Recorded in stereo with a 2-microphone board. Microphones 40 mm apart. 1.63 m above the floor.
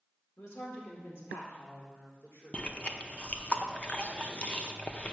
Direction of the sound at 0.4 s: 75° left (ahead or behind).